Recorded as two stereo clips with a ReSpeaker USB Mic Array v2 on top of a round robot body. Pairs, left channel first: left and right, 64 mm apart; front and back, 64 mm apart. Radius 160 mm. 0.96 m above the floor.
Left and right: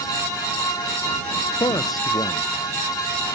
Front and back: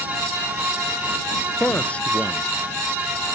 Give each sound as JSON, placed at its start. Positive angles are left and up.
{"t": 1.6, "sound": "a man speaking", "azimuth_deg": 70}